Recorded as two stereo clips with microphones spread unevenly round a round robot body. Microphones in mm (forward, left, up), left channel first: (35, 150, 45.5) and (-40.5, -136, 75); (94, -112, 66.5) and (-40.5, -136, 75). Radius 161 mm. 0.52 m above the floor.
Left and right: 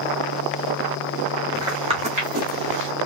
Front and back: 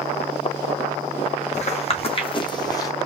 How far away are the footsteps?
About 2.0 m.